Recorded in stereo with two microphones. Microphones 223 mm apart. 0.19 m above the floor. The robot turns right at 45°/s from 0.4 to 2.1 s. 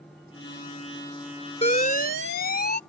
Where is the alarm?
30° left (ahead or behind); by 2.8 s 45° left (ahead or behind).